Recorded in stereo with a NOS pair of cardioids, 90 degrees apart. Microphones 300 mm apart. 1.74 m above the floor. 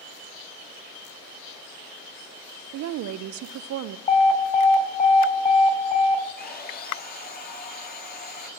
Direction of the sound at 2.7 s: 65° right.